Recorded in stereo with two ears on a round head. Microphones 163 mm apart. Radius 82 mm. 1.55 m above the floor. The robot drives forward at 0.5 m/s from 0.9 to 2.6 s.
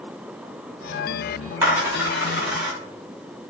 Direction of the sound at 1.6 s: 15° right (ahead or behind).